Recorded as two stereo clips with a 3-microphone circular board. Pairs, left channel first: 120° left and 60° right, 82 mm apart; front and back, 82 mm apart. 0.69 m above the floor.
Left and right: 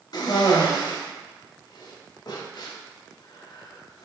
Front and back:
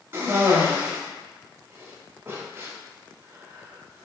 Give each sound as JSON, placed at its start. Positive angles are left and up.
{"t": 0.1, "sound": "a cough", "azimuth_deg": 130, "distance_m": 0.8}